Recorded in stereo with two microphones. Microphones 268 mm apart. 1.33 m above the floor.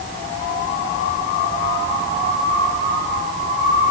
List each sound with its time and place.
Only background noise.